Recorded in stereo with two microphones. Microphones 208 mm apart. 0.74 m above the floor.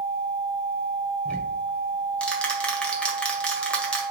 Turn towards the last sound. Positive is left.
turn(degrees=5)  # may be behind; listen again after turning